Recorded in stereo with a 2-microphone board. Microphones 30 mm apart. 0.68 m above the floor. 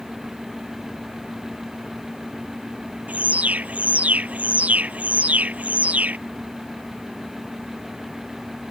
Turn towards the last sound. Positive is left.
turn(degrees=-55)  # may be behind; listen again after turning